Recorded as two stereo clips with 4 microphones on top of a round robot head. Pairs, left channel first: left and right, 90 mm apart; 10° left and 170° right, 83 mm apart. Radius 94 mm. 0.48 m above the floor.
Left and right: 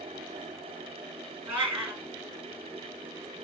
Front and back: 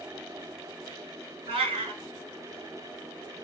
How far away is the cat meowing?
About 1.8 m.